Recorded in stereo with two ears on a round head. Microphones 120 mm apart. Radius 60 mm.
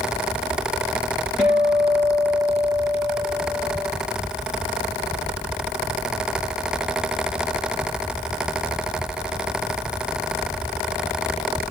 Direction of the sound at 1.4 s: 5° right (ahead or behind).